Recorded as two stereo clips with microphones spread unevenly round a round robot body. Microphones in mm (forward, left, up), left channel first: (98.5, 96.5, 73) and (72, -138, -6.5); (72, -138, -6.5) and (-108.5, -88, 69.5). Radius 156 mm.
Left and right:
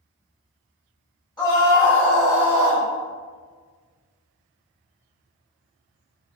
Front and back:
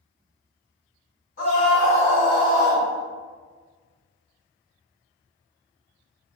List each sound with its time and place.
1.4 s a scream: 5° left, 1.8 m; by 2.9 s 70° right, 1.1 m